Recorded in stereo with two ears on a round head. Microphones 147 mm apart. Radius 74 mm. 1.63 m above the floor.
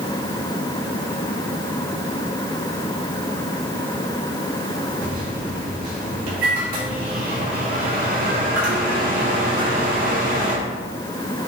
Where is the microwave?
60° right (ahead or behind), 3.5 m.